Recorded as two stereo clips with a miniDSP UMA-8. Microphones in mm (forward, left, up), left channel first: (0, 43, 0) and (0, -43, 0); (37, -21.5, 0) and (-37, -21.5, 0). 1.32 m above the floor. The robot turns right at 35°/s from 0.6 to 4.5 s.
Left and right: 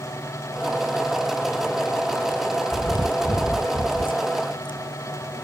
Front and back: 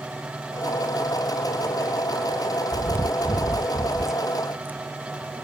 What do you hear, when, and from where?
2.7 s chewing: 50° left; by 5.4 s 110° left